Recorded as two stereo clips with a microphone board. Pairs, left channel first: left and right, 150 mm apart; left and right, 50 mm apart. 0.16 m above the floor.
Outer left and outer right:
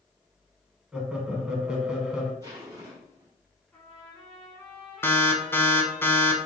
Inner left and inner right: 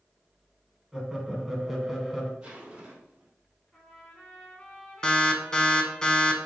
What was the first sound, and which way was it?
Laughter, 5° right (ahead or behind).